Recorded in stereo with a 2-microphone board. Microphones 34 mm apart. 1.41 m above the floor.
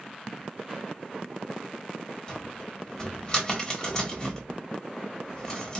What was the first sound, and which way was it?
A cupboard door, 25° left (ahead or behind).